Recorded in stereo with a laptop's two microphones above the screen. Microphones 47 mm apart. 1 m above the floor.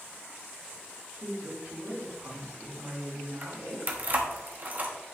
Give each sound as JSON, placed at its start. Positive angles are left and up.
{"t": 1.1, "sound": "a woman speaking", "side_deg": -75, "distance_m": 3.5}
{"t": 3.4, "sound": "keys jangling", "side_deg": -40, "distance_m": 1.2}